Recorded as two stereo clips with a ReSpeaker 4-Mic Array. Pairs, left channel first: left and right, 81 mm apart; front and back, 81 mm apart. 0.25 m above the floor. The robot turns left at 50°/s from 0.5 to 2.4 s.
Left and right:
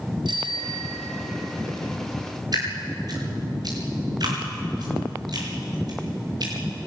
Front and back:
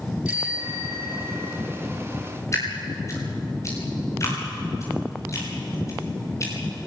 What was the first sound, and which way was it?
A bicycle bell, 105° right.